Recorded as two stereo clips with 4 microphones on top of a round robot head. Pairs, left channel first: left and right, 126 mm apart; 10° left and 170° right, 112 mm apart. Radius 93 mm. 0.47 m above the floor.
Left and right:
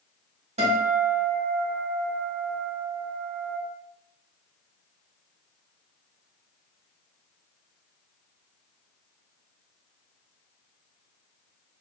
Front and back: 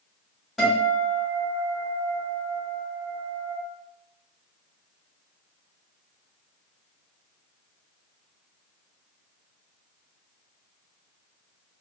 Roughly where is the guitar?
Right.